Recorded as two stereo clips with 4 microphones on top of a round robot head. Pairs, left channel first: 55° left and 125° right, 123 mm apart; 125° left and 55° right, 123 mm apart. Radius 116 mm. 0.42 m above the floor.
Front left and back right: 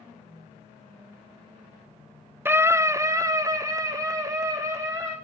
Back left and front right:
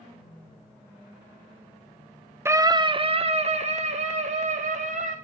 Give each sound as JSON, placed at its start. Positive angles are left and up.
{"t": 2.5, "sound": "a scream", "azimuth_deg": -85, "distance_m": 0.8}